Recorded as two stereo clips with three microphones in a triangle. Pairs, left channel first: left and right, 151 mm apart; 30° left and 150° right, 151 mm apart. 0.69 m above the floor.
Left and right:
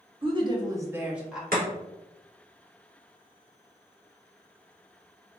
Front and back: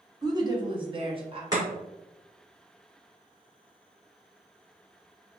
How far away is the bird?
I don't hear a bird.